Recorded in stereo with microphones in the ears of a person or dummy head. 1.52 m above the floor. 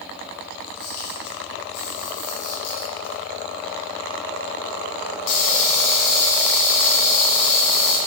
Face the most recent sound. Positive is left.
turn(degrees=60)  # may be behind; listen again after turning